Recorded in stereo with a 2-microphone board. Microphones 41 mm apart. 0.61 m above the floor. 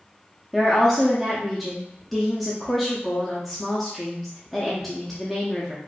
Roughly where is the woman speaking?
Centre.